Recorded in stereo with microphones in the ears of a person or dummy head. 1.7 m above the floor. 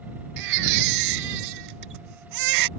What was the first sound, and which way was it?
A baby crying, 55° right (ahead or behind).